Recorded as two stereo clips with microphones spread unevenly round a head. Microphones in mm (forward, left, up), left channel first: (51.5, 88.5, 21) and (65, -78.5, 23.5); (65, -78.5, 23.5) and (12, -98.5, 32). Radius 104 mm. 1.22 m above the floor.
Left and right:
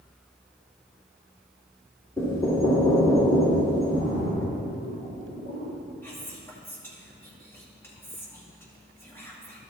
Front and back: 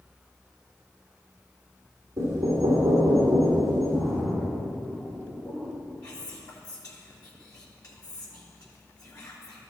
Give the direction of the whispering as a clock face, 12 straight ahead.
11 o'clock.